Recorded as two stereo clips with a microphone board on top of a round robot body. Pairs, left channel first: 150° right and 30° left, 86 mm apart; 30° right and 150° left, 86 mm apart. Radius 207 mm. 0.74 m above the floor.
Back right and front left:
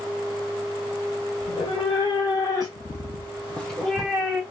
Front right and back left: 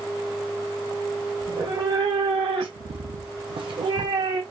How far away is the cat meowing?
About 1.4 m.